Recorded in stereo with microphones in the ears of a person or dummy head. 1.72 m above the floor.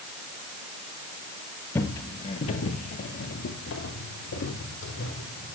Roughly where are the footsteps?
Centre.